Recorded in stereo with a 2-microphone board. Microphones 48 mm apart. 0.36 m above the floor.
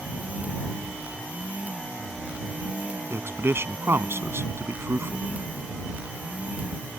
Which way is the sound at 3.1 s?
60° right (ahead or behind).